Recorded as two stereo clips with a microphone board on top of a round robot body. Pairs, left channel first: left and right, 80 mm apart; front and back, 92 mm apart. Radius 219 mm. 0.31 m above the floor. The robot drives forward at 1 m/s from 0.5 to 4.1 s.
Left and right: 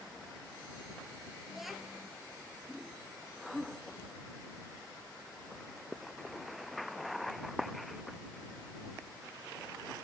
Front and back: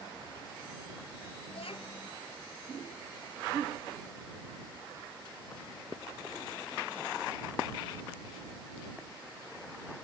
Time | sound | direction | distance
1.5 | a child speaking | 5° right | ?